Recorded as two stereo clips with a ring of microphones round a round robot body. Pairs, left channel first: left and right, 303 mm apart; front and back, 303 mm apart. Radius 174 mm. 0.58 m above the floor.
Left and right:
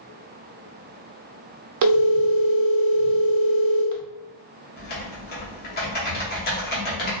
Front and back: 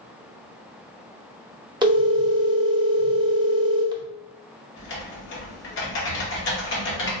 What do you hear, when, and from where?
1.8 s a phone ringing: 105° right, 0.7 m
4.8 s typing on a keyboard: 40° left, 0.9 m